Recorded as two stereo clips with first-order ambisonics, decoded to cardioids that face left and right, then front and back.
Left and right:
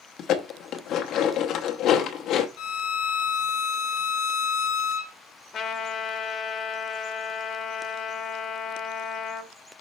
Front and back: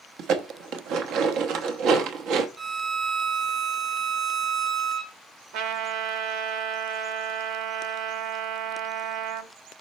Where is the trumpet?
155° left, 1.3 m.